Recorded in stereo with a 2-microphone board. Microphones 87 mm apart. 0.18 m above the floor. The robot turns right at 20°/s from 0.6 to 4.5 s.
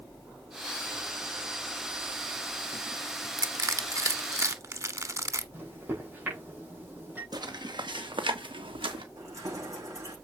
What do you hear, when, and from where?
3.4 s crushing: 40° right (ahead or behind), 0.9 m; by 5.4 s 35° right (ahead or behind), 0.9 m
5.5 s a microwave: 25° right (ahead or behind), 6 m
7.3 s footsteps: 55° right (ahead or behind), 1.9 m; by 9.1 s 80° right, 2.5 m
9.2 s keys jangling: 40° right (ahead or behind), 7 m